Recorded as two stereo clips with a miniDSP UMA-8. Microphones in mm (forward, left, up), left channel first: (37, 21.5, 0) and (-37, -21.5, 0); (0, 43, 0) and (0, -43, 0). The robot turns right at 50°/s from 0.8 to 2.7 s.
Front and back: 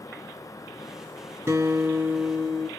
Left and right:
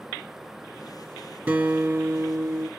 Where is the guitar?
140° right, 1.9 m; by 2.7 s 80° right, 1.9 m.